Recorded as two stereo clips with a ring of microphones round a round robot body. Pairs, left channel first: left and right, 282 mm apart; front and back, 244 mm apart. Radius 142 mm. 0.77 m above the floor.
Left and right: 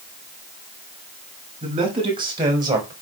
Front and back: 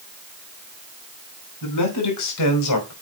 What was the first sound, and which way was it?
A man speaking, 20° right.